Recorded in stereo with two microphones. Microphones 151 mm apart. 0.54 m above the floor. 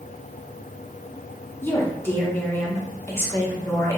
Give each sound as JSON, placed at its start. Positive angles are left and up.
{"t": 1.6, "sound": "a woman speaking", "side_deg": 15, "distance_m": 0.7}